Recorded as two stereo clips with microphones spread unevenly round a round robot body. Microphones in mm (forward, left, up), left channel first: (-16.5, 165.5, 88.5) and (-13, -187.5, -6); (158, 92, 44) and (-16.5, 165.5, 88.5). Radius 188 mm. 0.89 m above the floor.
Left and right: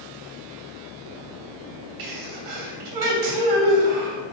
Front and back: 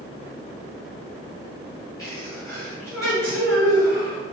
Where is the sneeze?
95° right, 2.5 m.